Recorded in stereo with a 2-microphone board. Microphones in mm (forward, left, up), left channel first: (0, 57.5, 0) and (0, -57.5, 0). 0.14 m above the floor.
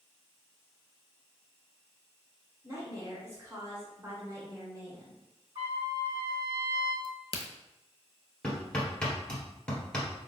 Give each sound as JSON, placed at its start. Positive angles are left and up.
{"t": 2.6, "sound": "a woman speaking", "side_deg": -25, "distance_m": 1.2}
{"t": 5.5, "sound": "a trumpet", "side_deg": -50, "distance_m": 2.0}
{"t": 7.0, "sound": "a crack", "side_deg": 55, "distance_m": 0.7}
{"t": 8.4, "sound": "hammering", "side_deg": 5, "distance_m": 1.4}